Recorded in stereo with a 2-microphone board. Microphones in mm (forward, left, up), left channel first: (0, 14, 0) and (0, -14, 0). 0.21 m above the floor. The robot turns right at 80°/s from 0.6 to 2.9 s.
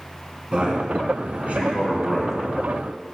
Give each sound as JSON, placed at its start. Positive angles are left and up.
{"t": 0.5, "sound": "a man speaking", "side_deg": -35, "distance_m": 2.0}